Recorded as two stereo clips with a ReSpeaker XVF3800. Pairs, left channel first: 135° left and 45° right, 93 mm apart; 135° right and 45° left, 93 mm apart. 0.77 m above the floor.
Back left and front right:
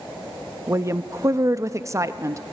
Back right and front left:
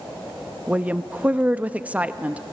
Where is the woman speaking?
20° right, 0.5 m.